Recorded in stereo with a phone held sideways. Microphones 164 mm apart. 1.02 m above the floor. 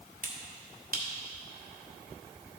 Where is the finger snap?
60° right (ahead or behind), 1.2 m.